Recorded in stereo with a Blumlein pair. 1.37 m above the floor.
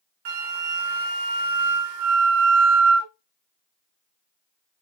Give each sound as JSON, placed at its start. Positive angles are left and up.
{"t": 0.2, "sound": "a flute", "azimuth_deg": -50, "distance_m": 0.6}